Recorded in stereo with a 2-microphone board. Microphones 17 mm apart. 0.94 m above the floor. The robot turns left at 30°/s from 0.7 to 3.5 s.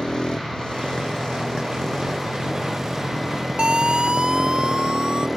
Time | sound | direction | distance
0.0 | a motorcycle | 70° left | ?
3.6 | a siren | 70° right (ahead or behind) | ?